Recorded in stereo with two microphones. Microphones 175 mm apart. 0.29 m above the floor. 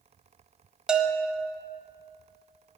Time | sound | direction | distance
0.9 | a bell | 5° right (ahead or behind) | 1.1 m